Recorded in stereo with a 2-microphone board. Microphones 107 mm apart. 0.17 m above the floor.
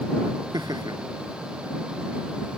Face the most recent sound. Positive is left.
turn(degrees=-40)  # may be behind; listen again after turning